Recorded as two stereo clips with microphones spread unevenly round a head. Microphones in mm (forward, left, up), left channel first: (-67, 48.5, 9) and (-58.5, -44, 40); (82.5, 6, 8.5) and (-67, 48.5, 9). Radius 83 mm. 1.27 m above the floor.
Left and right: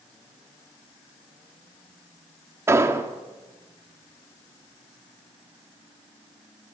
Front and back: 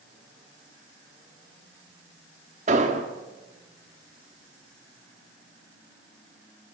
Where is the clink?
I don't hear a clink.